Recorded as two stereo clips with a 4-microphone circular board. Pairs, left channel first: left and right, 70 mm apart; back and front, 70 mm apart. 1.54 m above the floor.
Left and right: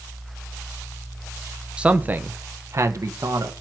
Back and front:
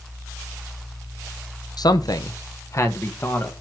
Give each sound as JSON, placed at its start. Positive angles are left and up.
{"t": 1.8, "sound": "a man speaking", "azimuth_deg": -165, "distance_m": 0.9}